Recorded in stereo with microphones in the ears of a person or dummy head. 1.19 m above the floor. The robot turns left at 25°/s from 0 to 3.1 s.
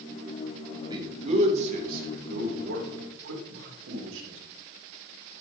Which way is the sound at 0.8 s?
25° right (ahead or behind).